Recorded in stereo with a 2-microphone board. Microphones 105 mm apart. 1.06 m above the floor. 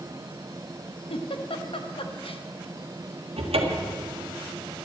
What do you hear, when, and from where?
1.1 s a giggle: 65° left (ahead or behind), 0.9 m
3.4 s a cupboard door: 80° right, 1.5 m